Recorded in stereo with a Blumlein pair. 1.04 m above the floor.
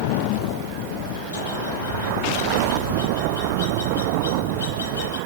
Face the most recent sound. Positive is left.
turn(degrees=70)